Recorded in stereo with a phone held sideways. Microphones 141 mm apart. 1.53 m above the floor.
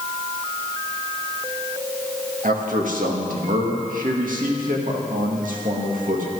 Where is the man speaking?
75° right (ahead or behind), 2 m.